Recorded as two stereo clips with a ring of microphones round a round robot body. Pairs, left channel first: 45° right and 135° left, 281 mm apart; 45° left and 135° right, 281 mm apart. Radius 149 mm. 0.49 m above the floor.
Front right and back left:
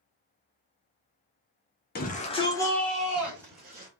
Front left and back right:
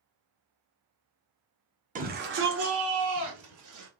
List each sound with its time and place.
1.9 s a shout: 85° right, 1.4 m; by 3.9 s 150° right, 2.5 m